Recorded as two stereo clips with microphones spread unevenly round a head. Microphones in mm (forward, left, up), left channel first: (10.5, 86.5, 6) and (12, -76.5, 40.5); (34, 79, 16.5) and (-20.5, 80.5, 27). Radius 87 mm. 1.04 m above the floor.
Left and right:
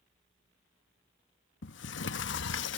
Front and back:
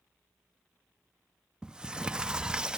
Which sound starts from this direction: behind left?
A sliding door, at 1.6 s.